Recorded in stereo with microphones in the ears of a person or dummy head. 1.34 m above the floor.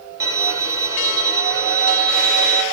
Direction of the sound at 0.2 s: 10° right (ahead or behind).